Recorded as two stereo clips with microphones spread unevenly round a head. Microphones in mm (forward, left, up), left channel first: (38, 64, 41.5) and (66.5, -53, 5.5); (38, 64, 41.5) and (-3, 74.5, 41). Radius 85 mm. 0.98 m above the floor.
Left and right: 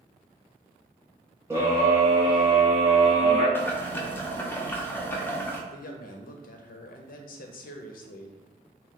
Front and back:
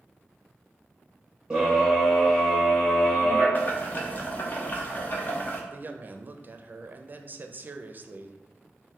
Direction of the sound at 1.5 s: 125° right.